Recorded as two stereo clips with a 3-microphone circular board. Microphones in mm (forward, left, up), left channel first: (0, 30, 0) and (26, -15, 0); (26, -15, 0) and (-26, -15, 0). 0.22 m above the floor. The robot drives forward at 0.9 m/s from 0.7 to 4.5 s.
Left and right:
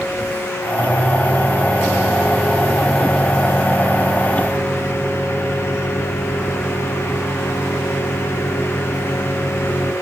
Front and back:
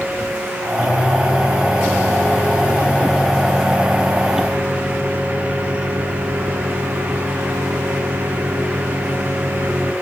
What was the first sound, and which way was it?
A microwave, 10° left.